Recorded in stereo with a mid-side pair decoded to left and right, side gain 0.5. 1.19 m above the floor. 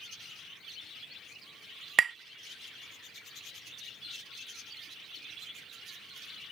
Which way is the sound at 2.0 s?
45° right.